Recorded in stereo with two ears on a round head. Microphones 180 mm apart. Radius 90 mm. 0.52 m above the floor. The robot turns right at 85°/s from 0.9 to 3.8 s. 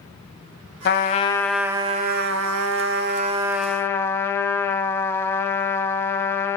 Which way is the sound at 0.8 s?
125° left.